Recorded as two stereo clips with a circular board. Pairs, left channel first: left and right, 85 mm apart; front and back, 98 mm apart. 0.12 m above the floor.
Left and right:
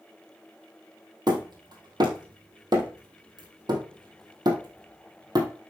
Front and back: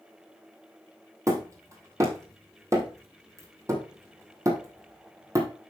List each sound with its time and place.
1.3 s hammering: 125° right, 3 m